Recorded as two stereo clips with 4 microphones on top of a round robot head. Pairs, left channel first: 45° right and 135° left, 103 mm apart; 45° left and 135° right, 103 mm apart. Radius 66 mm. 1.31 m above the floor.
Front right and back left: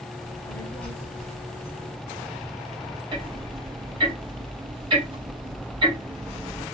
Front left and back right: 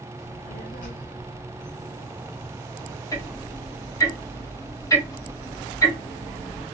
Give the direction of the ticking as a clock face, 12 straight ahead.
9 o'clock.